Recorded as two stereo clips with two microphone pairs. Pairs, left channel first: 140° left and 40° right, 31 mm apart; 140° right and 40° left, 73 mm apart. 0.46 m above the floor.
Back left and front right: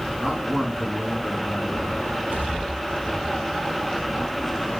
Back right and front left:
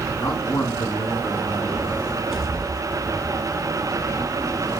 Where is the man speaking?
110° right, 4.5 m.